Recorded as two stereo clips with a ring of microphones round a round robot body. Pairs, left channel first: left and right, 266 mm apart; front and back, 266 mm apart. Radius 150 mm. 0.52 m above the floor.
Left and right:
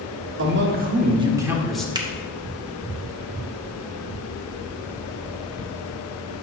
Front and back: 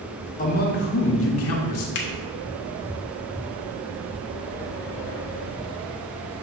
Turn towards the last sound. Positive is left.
turn(degrees=-20)